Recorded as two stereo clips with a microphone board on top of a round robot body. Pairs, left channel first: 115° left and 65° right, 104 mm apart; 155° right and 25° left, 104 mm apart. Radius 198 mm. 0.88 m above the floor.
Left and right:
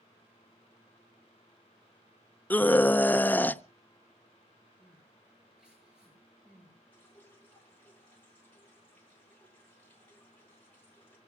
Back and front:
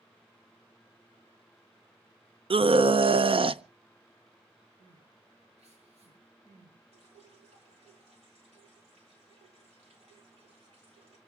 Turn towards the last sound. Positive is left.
turn(degrees=40)